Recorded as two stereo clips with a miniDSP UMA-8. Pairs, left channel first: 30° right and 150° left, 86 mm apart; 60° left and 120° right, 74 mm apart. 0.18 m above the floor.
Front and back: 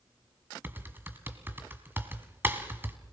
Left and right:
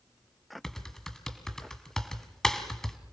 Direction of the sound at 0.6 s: 135° left.